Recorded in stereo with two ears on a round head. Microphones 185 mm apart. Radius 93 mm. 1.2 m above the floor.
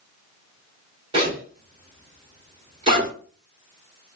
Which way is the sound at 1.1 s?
25° right (ahead or behind).